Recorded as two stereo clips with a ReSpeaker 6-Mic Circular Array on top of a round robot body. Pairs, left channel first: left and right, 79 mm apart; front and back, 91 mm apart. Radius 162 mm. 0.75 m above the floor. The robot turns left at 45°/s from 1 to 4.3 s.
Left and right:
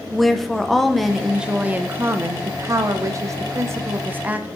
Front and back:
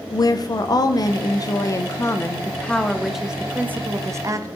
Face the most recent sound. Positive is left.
turn(degrees=-145)